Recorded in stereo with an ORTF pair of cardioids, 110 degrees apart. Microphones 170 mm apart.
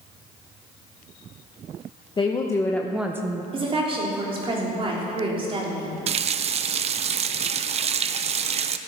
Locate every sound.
2.2 s a woman speaking: 25° left, 1.2 m; by 3.4 s 30° right, 0.8 m
3.5 s a woman speaking: 35° right, 3.5 m
6.1 s a running tap: 40° right, 0.6 m